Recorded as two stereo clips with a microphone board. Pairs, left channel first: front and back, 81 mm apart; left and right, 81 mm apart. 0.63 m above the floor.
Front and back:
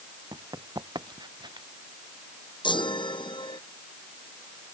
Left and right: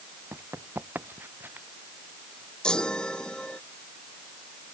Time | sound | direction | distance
0.3 | running footsteps | 150° right | ?
2.6 | a chime | 10° left | ?